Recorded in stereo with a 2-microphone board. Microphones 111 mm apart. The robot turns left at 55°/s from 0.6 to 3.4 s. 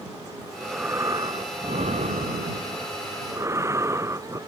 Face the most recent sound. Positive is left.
turn(degrees=-155)